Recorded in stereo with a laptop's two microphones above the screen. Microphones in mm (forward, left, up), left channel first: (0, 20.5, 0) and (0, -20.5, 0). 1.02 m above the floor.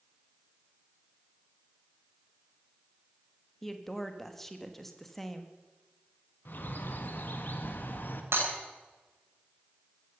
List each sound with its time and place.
3.6 s a woman speaking: 10° left (ahead or behind), 1.2 m
6.5 s a bird: 55° left (ahead or behind), 1.4 m
8.3 s breaking glass: 90° right, 7 m